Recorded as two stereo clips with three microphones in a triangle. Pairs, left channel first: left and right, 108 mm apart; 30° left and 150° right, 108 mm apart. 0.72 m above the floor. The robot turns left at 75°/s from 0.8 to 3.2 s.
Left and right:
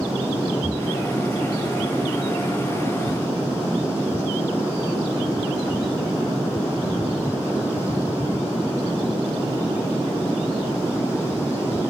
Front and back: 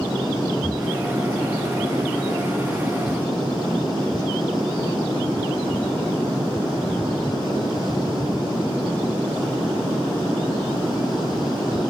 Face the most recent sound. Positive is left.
turn(degrees=135)